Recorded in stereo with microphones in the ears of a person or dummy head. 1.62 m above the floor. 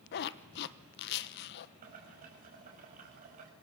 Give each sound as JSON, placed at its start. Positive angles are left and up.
{"t": 0.1, "sound": "a zipper", "side_deg": 60, "distance_m": 1.2}
{"t": 1.8, "sound": "boiling", "side_deg": -45, "distance_m": 5.5}